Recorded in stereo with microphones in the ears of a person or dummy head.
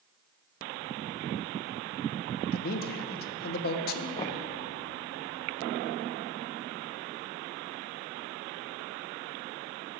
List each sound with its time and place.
2.5 s a man speaking: 50° left (ahead or behind), 0.7 m
4.2 s knocking: 25° left (ahead or behind), 0.5 m